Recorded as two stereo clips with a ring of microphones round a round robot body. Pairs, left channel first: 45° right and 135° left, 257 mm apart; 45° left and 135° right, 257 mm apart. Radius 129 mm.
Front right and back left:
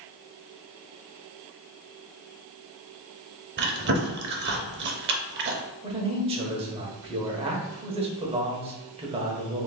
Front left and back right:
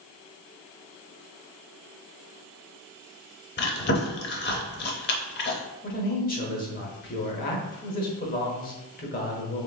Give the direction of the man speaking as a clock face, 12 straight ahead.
9 o'clock.